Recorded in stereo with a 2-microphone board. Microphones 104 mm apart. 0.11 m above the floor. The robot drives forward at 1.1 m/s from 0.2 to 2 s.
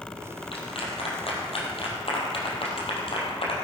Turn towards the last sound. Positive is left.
turn(degrees=65)  # may be behind; listen again after turning